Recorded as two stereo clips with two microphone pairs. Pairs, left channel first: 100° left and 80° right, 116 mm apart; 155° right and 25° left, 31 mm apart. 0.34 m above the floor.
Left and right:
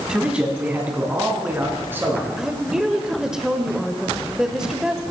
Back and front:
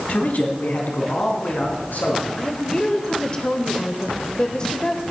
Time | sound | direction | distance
0.1 | a man speaking | 165° right | 2 m
2.4 | a woman speaking | 160° right | 1.0 m